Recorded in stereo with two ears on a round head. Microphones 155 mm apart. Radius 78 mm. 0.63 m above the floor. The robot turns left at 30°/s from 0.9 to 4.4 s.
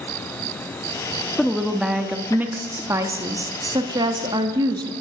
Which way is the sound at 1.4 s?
Centre (ahead or behind).